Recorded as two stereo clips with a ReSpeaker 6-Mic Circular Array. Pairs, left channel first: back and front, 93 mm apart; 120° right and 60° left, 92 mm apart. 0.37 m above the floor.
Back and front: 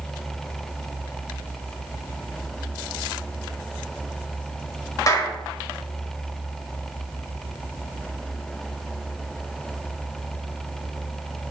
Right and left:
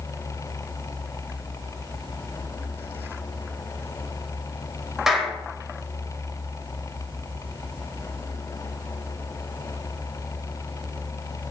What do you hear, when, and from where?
5.1 s a clap: 145° left, 1.6 m